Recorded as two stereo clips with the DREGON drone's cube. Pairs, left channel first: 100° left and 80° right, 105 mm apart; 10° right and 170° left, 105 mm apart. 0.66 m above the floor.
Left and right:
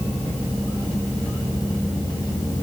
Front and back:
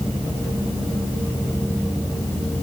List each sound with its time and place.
Only background noise.